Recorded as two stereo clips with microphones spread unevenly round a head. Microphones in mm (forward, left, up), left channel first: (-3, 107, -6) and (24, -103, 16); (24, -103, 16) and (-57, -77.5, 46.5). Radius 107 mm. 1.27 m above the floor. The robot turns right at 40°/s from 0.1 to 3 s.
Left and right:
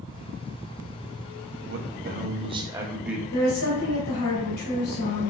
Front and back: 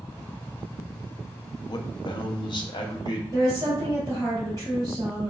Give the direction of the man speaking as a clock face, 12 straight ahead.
2 o'clock.